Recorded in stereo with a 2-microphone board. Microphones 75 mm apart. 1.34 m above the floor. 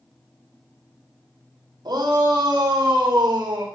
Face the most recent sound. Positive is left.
turn(degrees=-55)  # may be behind; listen again after turning